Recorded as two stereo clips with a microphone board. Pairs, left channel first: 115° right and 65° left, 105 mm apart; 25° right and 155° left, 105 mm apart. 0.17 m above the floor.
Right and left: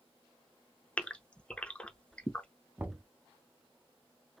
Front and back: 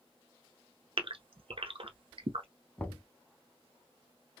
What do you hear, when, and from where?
1.0 s a gasp: 170° left, 0.6 m
2.8 s knocking: 25° left, 0.7 m